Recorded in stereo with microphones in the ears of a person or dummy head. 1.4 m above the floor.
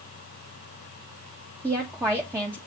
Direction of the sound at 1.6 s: 10° right (ahead or behind).